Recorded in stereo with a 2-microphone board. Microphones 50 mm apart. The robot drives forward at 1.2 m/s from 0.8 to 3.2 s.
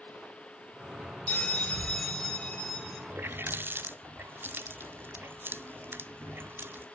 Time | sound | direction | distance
1.3 | a bell | 25° left (ahead or behind) | 1.2 m
3.1 | a running tap | 40° right (ahead or behind) | 0.5 m